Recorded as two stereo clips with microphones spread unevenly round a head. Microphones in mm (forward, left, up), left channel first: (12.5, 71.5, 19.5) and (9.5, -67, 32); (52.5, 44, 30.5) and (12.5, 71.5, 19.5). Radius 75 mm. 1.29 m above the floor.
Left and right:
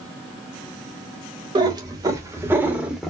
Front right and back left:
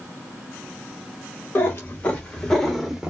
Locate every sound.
1.6 s a cat meowing: 45° right, 1.3 m; by 3.1 s 120° right, 0.9 m